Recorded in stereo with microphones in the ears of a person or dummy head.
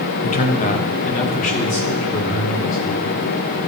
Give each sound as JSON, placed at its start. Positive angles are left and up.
{"t": 0.2, "sound": "a man speaking", "side_deg": 40, "distance_m": 0.7}